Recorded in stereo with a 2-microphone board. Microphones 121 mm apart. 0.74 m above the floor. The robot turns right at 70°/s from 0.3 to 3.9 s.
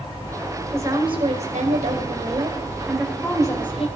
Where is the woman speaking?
160° right, 3 m; by 3.9 s 60° left, 3 m.